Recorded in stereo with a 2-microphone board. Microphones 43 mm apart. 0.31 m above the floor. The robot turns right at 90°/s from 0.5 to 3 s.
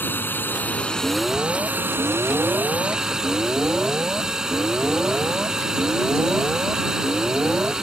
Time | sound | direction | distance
0.0 | a drone | 120° left | ?
1.0 | an alarm | 160° left | ?